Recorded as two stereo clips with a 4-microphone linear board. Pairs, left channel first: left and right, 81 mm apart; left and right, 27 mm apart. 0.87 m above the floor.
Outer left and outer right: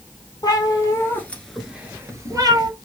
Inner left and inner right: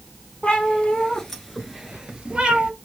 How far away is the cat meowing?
About 1.5 m.